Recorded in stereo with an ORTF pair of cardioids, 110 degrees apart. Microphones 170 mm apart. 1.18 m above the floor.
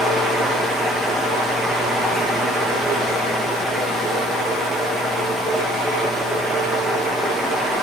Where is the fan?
Straight ahead, 1.1 m.